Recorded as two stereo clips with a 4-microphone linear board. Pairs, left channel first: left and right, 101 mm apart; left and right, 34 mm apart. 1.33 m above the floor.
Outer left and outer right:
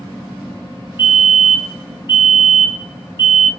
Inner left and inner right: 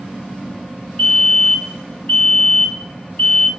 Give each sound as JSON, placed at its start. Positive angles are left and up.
{"t": 1.0, "sound": "a fire alarm", "side_deg": 50, "distance_m": 2.5}